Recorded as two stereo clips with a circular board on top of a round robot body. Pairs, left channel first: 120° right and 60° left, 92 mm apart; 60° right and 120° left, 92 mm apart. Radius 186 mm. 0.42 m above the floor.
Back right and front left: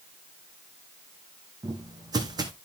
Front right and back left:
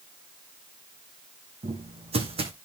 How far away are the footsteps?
About 2 m.